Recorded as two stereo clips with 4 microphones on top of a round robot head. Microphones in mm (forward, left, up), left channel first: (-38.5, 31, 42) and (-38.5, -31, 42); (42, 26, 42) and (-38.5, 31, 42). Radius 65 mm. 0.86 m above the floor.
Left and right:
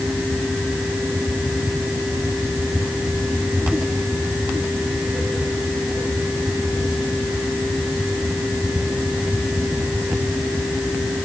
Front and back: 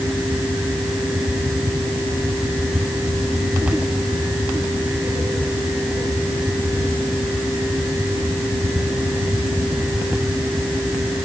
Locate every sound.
Only background noise.